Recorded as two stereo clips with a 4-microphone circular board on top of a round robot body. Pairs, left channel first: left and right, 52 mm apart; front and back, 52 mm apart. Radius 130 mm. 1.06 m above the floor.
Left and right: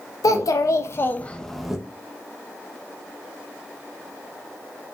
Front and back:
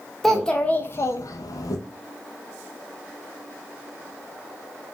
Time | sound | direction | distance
0.2 | a child speaking | 85° left | 0.9 m